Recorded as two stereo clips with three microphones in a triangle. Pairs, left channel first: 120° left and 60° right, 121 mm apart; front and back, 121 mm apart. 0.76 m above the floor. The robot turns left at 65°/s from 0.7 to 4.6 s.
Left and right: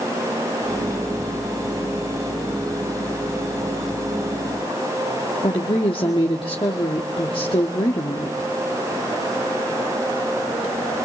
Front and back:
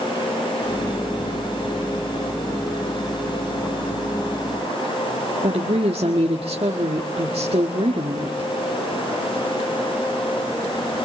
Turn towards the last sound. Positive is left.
turn(degrees=155)